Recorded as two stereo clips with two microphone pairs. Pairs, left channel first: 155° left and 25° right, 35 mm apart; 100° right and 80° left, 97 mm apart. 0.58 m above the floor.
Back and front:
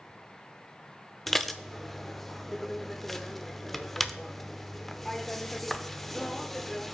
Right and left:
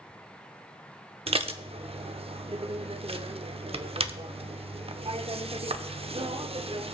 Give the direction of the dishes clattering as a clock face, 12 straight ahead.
10 o'clock.